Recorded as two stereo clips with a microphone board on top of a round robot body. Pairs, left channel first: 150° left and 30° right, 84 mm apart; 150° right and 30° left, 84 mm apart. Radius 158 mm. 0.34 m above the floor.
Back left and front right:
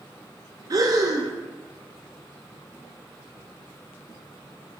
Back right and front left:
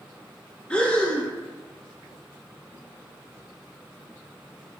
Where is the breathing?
75° right, 0.6 m.